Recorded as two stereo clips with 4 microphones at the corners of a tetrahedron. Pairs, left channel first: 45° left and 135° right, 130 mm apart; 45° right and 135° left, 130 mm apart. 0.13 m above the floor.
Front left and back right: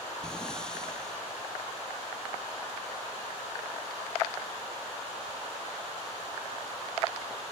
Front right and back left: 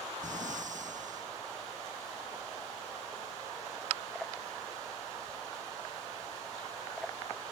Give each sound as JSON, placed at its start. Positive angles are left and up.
{"t": 0.2, "sound": "breathing", "azimuth_deg": 130}